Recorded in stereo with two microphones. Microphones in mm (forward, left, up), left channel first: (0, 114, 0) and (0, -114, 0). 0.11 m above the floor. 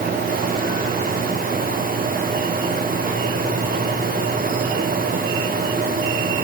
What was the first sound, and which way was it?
Only background noise.